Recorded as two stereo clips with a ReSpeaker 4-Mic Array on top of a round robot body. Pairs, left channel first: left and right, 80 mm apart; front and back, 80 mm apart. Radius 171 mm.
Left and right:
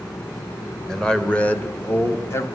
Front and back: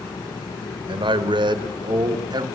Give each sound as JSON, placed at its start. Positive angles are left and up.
{"t": 0.9, "sound": "a man speaking", "azimuth_deg": 175, "distance_m": 1.4}